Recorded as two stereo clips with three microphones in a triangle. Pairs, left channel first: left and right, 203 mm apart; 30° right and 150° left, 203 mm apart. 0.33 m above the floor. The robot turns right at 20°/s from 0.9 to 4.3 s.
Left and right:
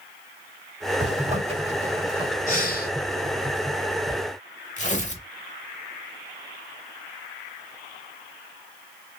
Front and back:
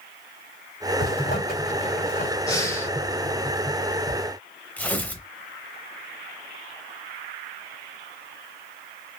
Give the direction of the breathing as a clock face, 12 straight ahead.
11 o'clock.